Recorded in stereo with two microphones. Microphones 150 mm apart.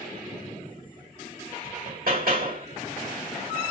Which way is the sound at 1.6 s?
80° right.